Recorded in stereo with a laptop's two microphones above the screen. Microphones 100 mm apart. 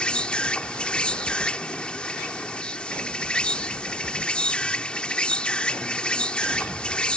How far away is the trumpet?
No trumpet in this recording.